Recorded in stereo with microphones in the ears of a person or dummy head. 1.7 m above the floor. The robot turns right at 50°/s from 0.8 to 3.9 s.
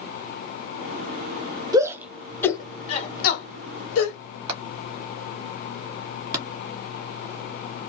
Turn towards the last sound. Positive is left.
turn(degrees=-25)  # may be behind; listen again after turning